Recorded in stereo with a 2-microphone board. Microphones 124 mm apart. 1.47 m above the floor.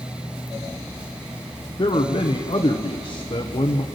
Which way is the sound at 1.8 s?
45° left (ahead or behind).